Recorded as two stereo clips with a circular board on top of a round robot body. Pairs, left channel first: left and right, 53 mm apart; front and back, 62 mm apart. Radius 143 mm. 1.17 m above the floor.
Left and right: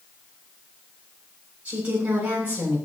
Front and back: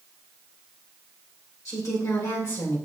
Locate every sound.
1.6 s a woman speaking: 30° right, 7 m